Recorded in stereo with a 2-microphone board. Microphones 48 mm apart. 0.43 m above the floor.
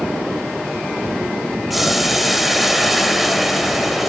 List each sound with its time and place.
1.7 s boiling: 5° right (ahead or behind), 1.5 m